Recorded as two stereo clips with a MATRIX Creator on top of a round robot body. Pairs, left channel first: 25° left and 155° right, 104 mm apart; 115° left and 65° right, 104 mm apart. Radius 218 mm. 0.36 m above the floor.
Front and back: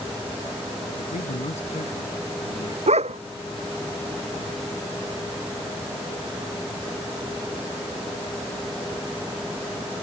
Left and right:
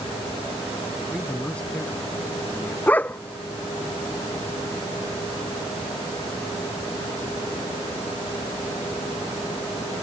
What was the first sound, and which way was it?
A man speaking, 35° left.